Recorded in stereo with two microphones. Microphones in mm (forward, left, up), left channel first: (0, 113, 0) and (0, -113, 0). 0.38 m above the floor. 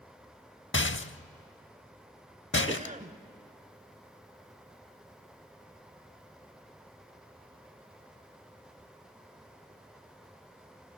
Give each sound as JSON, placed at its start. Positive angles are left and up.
{"t": 0.7, "sound": "a rattle", "side_deg": 60, "distance_m": 0.6}
{"t": 2.7, "sound": "a cough", "side_deg": -30, "distance_m": 1.0}